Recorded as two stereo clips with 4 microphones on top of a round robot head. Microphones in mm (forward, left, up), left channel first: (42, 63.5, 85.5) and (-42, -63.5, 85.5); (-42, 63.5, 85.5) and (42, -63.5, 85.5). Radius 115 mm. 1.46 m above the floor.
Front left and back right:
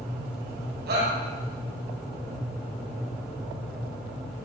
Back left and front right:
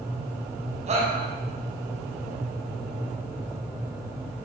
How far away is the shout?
About 9.5 m.